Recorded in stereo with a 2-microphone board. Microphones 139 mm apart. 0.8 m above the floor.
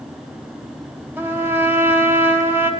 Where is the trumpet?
10° right (ahead or behind), 4.5 m.